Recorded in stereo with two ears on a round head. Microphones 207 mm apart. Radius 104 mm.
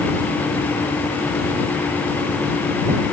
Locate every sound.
Only background noise.